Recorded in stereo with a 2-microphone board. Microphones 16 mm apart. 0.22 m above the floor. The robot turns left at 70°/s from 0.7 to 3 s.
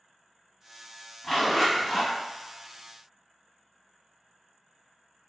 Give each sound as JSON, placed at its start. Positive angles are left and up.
{"t": 1.2, "sound": "a zipper", "azimuth_deg": 30, "distance_m": 1.8}